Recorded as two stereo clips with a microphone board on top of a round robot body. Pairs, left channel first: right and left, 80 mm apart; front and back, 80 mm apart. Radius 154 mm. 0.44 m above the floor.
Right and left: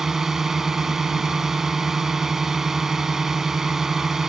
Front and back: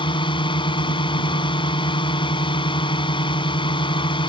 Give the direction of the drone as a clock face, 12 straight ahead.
12 o'clock.